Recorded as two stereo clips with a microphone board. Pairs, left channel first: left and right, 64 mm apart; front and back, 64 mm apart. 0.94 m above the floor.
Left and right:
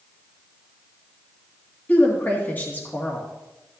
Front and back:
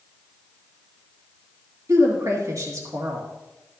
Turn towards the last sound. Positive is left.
turn(degrees=150)